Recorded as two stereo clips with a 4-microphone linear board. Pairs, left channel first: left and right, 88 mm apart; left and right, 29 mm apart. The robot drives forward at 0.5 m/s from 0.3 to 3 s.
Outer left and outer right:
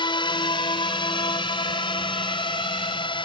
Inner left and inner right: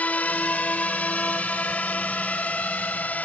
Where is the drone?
60° left (ahead or behind); by 3.2 s 65° left (ahead or behind).